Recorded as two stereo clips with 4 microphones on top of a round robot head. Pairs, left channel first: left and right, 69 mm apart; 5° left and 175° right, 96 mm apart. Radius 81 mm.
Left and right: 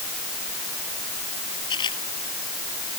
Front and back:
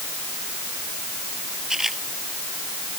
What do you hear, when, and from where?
1.7 s a camera shutter: 100° left